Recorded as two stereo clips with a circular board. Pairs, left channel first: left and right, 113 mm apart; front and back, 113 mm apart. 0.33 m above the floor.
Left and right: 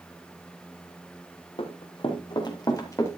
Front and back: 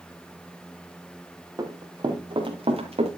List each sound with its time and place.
1.6 s running footsteps: 125° left, 3 m; by 3.2 s 160° left, 3 m